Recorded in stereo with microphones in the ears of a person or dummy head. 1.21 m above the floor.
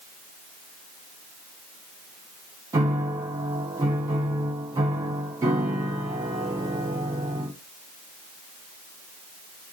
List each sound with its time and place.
2.7 s a piano: 15° right (ahead or behind), 0.9 m